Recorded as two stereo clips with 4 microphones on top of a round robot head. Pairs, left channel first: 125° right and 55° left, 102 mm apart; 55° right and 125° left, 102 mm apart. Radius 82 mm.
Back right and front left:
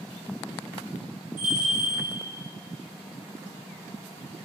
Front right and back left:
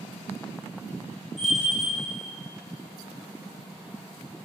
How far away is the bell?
About 2 m.